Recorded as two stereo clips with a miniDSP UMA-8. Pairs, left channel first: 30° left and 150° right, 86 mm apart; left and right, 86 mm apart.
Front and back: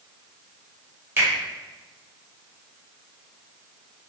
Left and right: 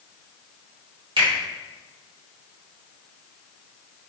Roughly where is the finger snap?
Right.